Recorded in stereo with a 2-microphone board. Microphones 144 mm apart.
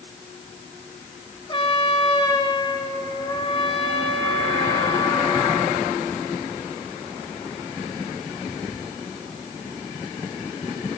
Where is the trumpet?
35° left (ahead or behind), 3 m.